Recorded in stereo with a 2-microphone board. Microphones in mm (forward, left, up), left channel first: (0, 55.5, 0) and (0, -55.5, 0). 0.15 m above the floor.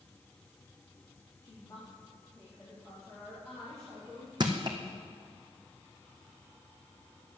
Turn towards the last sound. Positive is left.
turn(degrees=-40)  # may be behind; listen again after turning